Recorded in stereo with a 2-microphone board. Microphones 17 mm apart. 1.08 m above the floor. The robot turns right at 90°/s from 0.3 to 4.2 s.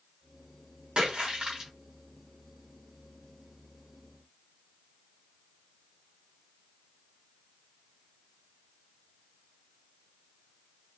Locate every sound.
1.0 s a splash: 95° right, 1.2 m; by 1.7 s 25° right, 1.2 m